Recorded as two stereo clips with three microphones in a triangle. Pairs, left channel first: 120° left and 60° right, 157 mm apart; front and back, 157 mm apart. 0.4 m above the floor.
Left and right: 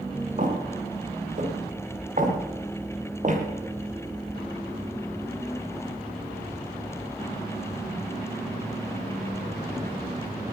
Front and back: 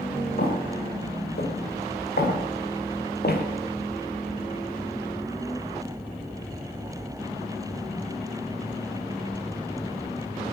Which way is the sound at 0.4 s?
20° right.